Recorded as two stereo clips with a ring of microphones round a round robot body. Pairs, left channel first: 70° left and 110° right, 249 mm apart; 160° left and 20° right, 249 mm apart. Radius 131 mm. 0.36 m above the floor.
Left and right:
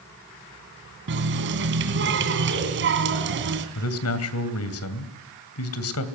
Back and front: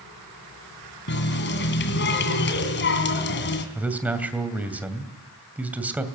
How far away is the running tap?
About 2.5 m.